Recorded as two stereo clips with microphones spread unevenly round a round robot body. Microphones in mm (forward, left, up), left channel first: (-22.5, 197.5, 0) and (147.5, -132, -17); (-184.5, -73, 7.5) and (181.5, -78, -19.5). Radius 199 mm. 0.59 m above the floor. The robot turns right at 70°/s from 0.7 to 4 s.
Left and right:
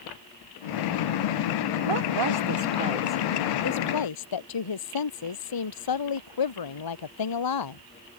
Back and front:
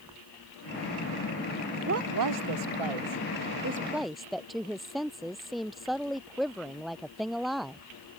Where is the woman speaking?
60° right; by 7.8 s 90° left.